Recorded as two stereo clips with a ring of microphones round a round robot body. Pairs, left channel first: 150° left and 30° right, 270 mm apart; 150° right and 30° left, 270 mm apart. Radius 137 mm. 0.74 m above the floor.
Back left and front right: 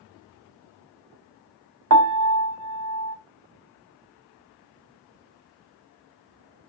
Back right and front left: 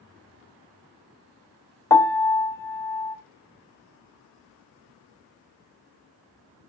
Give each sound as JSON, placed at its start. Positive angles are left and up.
{"t": 1.9, "sound": "a piano", "azimuth_deg": -70, "distance_m": 0.9}